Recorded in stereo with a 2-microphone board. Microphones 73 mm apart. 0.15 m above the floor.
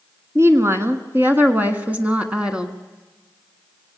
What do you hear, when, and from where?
0.3 s a woman speaking: 40° right (ahead or behind), 1.9 m; by 2.8 s 10° right (ahead or behind), 1.8 m